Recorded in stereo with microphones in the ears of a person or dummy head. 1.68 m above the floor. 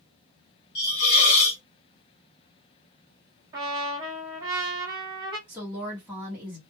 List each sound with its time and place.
0.8 s a hiss: 25° left (ahead or behind), 0.5 m
3.5 s a trumpet: 30° right (ahead or behind), 1.3 m
5.5 s a woman speaking: 15° right (ahead or behind), 0.9 m